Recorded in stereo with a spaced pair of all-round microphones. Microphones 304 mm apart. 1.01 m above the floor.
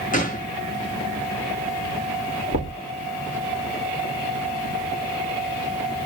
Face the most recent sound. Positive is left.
turn(degrees=45)  # may be behind; listen again after turning